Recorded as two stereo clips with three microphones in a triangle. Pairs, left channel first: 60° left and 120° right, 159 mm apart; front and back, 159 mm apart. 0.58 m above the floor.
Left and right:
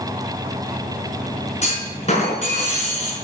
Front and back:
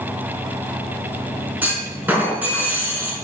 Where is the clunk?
100° left, 4 m.